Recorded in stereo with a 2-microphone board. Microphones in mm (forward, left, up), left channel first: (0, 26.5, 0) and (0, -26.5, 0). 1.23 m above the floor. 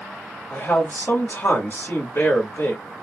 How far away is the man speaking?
About 2 m.